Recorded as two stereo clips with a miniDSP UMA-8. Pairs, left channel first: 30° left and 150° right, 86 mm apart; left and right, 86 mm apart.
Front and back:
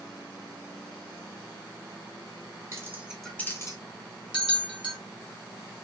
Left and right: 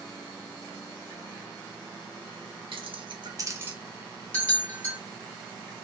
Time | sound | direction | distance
2.7 | keys jangling | 95° right | 0.6 m
4.3 | a bell | 20° left | 1.1 m